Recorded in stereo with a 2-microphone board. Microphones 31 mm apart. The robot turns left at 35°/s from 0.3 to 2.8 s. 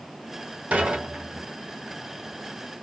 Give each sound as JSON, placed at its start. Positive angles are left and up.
{"t": 0.7, "sound": "dishes clattering", "side_deg": -55, "distance_m": 1.0}